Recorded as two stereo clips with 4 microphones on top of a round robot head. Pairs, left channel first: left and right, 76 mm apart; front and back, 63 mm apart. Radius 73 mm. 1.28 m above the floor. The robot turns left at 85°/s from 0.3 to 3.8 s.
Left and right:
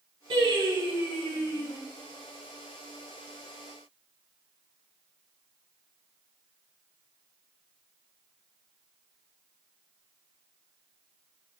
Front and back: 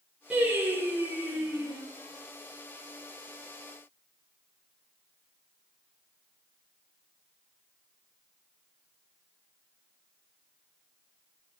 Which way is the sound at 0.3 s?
105° right.